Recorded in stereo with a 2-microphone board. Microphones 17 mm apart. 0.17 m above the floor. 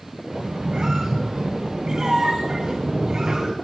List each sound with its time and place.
0.3 s a squeak: 55° right (ahead or behind), 2.5 m